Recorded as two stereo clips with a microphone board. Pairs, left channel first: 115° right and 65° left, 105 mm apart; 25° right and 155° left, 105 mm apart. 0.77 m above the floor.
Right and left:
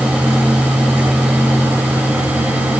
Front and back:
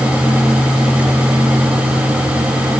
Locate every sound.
Only background noise.